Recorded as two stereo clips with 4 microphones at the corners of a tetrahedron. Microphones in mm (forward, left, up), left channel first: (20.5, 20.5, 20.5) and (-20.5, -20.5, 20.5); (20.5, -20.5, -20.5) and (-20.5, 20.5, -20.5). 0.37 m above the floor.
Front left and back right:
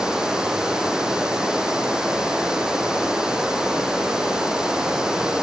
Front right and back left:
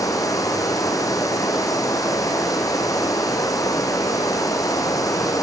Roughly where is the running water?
Ahead right.